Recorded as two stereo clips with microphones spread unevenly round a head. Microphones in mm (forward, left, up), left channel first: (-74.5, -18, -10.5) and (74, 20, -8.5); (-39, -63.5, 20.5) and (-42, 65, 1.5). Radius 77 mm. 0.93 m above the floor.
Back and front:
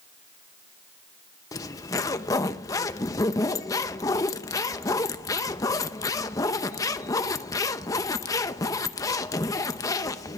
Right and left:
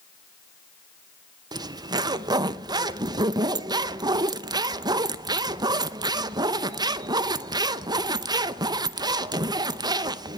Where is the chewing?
I don't hear chewing.